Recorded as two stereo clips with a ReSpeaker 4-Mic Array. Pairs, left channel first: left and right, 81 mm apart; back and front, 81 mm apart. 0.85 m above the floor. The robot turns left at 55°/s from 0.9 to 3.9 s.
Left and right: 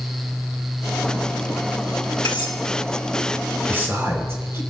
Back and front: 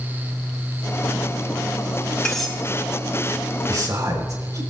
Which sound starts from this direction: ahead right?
A man speaking, at 3.7 s.